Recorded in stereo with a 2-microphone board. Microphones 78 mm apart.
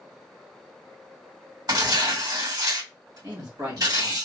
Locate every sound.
1.7 s tearing paper: 55° right (ahead or behind), 2 m
3.2 s a man speaking: 40° right (ahead or behind), 1.1 m